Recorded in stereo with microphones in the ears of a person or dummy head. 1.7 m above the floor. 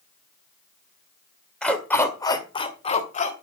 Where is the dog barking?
10° left (ahead or behind), 2 m; by 3.3 s 50° left (ahead or behind), 2.5 m.